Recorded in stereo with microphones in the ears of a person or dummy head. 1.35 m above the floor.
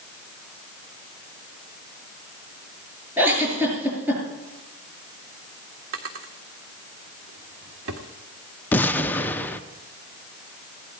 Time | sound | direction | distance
3.2 | a giggle | 10° right (ahead or behind) | 6 m
5.9 | a drawer | 70° right (ahead or behind) | 1.9 m
8.7 | an explosion | 10° left (ahead or behind) | 0.8 m